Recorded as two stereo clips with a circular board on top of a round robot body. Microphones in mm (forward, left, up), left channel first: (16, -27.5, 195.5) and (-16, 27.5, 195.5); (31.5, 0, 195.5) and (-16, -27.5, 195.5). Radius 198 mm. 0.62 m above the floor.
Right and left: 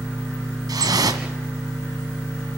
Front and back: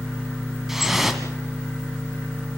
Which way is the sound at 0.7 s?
125° left.